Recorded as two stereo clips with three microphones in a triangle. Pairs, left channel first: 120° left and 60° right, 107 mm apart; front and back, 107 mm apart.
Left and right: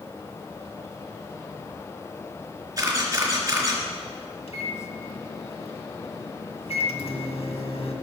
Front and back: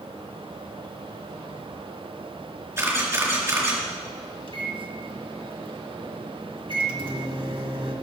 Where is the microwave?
140° left, 1.7 m.